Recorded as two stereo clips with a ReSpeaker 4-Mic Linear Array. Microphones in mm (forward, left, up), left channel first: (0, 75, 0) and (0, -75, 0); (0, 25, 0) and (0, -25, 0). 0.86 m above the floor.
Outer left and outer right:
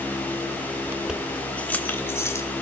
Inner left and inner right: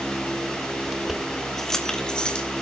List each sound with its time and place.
0.9 s keys jangling: 15° right (ahead or behind), 1.0 m; by 2.5 s 20° left (ahead or behind), 2.5 m